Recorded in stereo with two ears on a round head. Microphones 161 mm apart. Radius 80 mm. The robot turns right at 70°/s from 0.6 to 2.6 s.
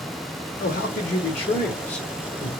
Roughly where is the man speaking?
Left.